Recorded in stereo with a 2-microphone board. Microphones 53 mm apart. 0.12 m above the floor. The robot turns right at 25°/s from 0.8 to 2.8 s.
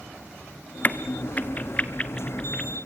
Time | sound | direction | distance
0.8 | a crack | 35° left (ahead or behind) | 0.9 m